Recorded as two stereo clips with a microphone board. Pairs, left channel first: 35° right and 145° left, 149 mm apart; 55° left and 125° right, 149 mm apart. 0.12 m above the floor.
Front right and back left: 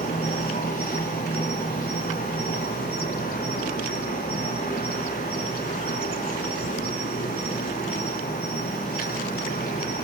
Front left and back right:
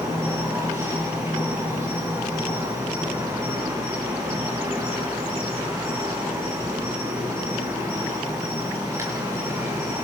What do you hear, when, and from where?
0.0 s an insect: 50° right, 5.5 m